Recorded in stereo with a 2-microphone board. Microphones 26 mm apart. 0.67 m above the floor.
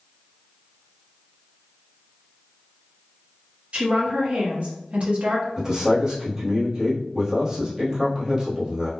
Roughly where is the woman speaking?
Right.